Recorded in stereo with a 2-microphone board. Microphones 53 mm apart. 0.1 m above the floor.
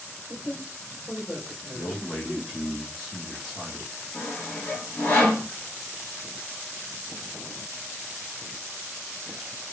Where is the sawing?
30° left (ahead or behind), 1.1 m.